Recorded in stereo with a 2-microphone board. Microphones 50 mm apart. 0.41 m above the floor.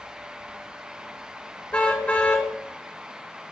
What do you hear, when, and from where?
1.7 s a car horn: 25° left (ahead or behind), 2.5 m